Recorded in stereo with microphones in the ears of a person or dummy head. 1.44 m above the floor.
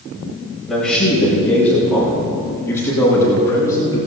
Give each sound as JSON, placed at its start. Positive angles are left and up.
{"t": 0.7, "sound": "a man speaking", "side_deg": 0, "distance_m": 6.5}